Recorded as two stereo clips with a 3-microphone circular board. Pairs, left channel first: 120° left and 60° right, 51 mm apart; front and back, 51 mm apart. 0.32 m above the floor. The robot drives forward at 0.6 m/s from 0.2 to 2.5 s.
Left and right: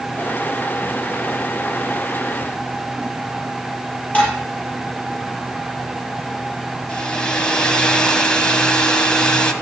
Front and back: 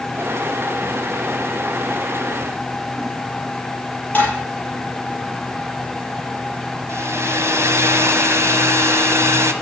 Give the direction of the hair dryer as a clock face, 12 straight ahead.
6 o'clock.